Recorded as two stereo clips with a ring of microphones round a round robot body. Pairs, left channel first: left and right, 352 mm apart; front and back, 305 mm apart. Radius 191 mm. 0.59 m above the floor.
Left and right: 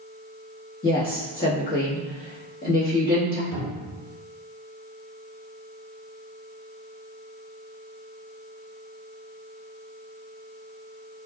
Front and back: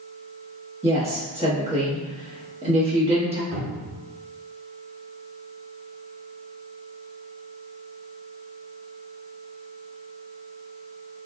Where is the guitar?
I don't hear a guitar.